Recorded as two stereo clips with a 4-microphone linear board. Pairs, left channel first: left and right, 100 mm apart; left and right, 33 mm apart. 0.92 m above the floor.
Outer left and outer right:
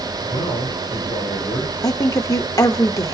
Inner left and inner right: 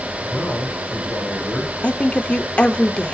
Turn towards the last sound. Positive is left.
turn(degrees=35)  # may be behind; listen again after turning